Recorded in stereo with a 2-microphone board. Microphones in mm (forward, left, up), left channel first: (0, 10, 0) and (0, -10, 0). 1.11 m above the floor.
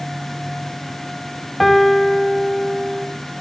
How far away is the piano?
About 0.8 m.